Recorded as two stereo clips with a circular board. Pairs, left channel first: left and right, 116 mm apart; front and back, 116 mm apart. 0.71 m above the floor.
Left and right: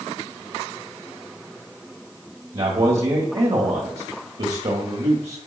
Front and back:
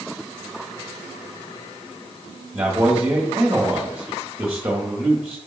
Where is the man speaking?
105° right, 1.3 m.